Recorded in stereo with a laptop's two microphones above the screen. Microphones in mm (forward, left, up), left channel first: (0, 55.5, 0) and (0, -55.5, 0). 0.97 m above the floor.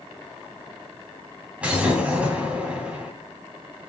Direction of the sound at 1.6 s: 10° right (ahead or behind).